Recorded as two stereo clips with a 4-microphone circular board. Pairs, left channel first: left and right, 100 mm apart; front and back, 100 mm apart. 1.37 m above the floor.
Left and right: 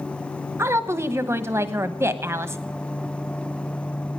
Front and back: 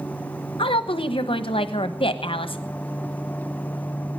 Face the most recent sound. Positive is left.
turn(degrees=-25)